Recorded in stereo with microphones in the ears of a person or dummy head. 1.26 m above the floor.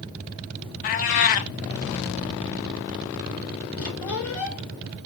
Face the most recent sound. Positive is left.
turn(degrees=70)  # may be behind; listen again after turning